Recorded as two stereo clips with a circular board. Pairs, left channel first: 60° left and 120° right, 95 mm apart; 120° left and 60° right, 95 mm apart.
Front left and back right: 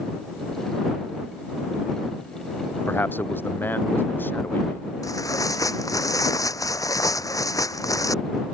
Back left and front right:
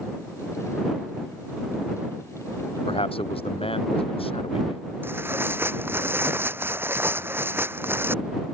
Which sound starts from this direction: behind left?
A man speaking, at 2.9 s.